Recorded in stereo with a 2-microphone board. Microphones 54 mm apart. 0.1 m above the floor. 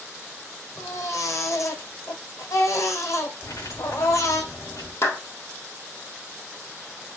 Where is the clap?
60° left (ahead or behind), 2.5 m.